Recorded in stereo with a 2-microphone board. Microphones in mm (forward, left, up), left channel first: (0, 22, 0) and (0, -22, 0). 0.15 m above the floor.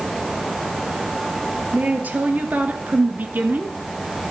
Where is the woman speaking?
40° right (ahead or behind), 2.5 m.